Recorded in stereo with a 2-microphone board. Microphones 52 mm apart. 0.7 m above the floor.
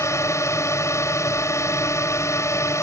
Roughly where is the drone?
Left.